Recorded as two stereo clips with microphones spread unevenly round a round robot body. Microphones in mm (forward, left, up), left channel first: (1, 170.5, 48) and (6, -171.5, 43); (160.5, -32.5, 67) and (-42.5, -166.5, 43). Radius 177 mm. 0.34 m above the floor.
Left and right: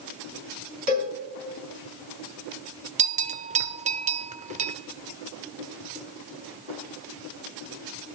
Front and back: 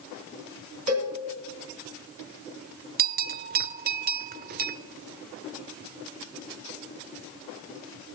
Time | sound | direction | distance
0.9 | a cowbell | 140° right | 3.5 m
3.0 | a bell | 150° right | 0.6 m